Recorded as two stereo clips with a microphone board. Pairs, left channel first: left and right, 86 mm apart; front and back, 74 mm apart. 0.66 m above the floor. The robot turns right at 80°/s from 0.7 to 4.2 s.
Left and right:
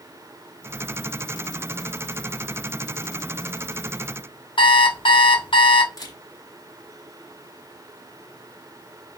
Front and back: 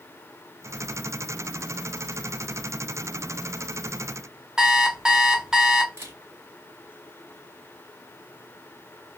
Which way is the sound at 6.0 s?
130° left.